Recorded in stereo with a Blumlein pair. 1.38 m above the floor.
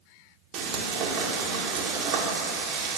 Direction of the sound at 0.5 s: 40° right.